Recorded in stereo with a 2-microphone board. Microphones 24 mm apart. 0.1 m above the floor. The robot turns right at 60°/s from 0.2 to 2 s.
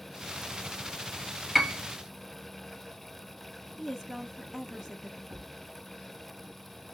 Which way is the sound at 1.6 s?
10° right (ahead or behind).